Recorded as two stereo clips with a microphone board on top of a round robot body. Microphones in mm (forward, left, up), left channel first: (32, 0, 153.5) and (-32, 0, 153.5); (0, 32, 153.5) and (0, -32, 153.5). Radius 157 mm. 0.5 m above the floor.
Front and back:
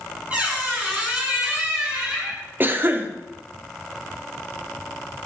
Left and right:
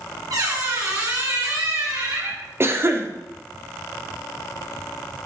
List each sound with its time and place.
0.3 s a squeak: 110° right, 4.5 m
2.6 s a cough: 130° right, 1.6 m